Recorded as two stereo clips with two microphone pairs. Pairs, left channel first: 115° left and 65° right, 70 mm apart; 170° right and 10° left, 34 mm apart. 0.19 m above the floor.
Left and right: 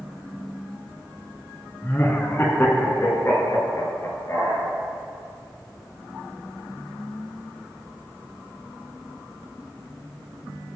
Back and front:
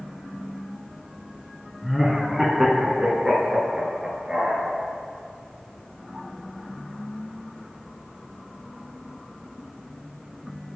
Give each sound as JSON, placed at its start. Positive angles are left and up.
{"t": 1.8, "sound": "laughter", "azimuth_deg": 100, "distance_m": 1.2}